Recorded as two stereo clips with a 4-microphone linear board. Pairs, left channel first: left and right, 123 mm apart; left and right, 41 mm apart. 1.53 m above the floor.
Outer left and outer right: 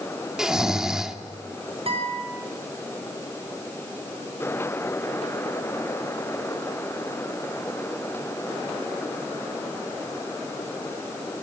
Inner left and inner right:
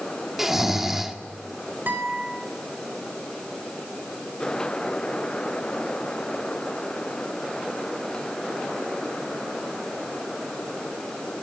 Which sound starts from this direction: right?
A guitar, at 1.9 s.